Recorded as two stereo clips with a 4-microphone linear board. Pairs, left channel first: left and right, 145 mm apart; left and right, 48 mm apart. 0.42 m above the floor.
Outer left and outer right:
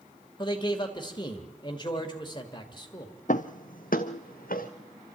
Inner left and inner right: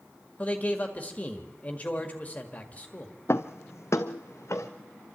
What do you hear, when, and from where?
0.4 s a man speaking: 30° left (ahead or behind), 1.8 m
3.3 s footsteps: 60° left (ahead or behind), 0.8 m; by 4.7 s 80° left, 2 m